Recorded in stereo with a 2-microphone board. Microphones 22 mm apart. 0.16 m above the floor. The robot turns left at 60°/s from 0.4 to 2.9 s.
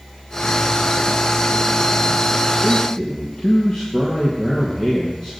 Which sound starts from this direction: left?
A man speaking, at 2.6 s.